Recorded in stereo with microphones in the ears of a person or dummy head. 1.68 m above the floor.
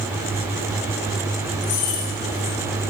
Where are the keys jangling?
50° left (ahead or behind), 3 m.